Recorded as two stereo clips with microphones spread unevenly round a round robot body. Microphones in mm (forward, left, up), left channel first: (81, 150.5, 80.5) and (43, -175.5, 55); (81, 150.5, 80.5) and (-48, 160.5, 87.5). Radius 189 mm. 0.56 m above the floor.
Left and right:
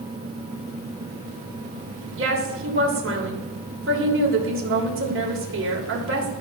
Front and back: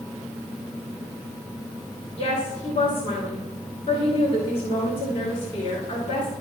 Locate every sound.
2.2 s a woman speaking: 50° right, 3 m